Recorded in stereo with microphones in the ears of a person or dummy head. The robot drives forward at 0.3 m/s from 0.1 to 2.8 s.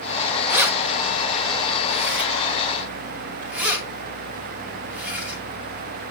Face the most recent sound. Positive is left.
turn(degrees=-5)  # may be behind; listen again after turning